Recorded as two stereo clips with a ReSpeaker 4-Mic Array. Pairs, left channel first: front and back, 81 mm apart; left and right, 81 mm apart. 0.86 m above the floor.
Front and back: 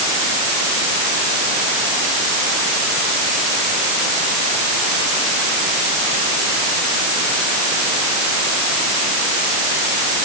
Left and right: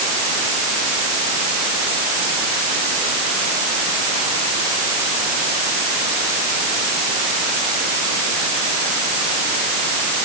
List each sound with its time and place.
Only background noise.